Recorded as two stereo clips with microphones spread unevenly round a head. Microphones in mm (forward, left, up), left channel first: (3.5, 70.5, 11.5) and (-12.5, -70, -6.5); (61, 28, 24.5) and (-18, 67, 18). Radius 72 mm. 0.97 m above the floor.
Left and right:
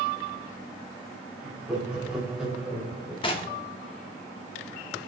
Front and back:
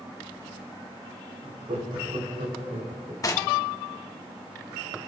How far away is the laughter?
About 7 m.